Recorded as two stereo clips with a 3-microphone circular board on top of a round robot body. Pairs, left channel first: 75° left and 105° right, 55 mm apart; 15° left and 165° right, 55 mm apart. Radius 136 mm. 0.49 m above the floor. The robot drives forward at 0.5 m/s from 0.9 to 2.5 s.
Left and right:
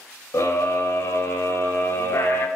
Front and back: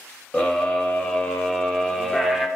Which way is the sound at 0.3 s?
75° left.